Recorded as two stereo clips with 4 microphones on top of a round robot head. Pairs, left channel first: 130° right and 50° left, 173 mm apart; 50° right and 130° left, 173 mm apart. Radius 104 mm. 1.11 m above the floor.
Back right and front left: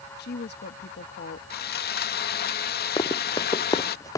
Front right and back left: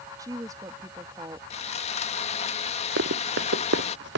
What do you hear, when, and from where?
0.2 s a woman speaking: 155° right
1.5 s sawing: 100° right
3.0 s running footsteps: 160° left; by 4.2 s 155° left